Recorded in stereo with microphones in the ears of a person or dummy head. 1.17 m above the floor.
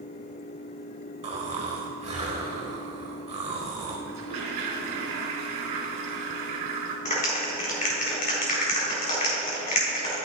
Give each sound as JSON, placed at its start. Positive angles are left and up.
{"t": 1.2, "sound": "snoring", "side_deg": -35, "distance_m": 1.5}
{"t": 4.1, "sound": "a toilet flushing", "side_deg": -55, "distance_m": 3.0}
{"t": 7.0, "sound": "a clap", "side_deg": 40, "distance_m": 3.0}